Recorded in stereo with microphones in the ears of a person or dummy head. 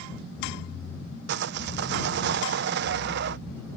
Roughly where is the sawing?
Right.